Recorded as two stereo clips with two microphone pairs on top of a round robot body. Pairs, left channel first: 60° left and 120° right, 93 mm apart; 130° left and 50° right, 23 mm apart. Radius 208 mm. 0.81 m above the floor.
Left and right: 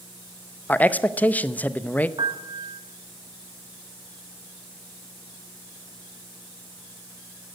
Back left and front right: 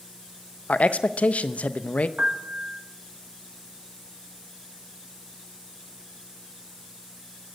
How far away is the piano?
About 1.5 m.